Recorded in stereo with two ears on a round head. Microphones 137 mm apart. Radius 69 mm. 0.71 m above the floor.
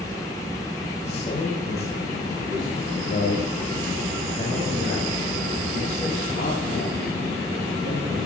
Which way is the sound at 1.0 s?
45° left (ahead or behind).